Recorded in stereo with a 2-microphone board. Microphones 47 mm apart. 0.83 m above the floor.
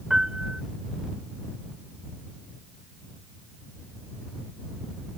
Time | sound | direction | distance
0.1 | a piano | 15° right (ahead or behind) | ?